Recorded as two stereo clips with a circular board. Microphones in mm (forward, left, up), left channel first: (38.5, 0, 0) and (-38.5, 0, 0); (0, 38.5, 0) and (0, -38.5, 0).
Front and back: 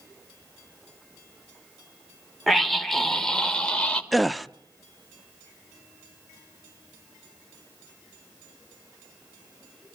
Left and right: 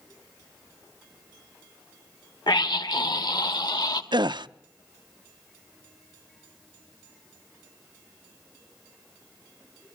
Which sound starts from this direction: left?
A scream, at 2.5 s.